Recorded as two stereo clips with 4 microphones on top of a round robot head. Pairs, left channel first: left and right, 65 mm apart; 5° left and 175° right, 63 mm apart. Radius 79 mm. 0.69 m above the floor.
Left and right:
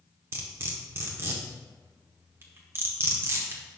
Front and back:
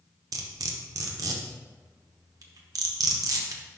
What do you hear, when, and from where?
0.3 s cutlery clinking: 145° right, 0.9 m